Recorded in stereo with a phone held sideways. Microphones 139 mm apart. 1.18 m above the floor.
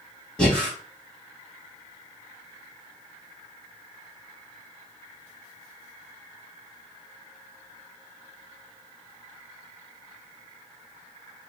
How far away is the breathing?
About 1.8 m.